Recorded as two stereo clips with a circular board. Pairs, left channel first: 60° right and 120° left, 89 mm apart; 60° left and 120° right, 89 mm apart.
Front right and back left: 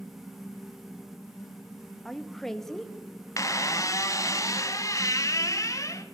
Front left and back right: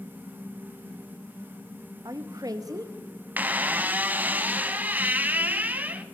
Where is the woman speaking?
145° right, 0.7 m.